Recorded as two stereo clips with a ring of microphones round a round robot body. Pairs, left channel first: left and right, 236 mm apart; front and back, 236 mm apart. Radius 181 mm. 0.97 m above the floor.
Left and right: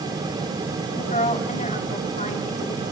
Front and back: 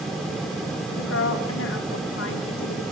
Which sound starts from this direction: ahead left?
A woman speaking, at 0.9 s.